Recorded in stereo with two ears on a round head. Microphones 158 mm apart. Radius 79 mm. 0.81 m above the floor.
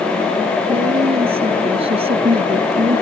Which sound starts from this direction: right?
A woman speaking, at 0.7 s.